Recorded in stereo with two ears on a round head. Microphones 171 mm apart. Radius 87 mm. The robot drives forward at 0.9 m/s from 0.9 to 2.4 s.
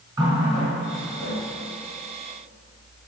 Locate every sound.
0.2 s a running tap: 20° right (ahead or behind), 3.5 m; by 1.4 s 25° right (ahead or behind), 3 m